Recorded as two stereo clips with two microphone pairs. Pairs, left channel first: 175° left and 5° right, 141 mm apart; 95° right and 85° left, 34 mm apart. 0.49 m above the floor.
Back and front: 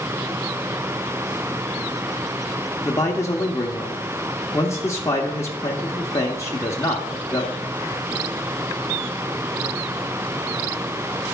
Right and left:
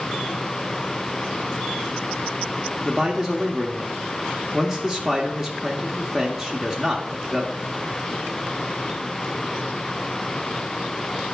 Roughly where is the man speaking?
Behind left.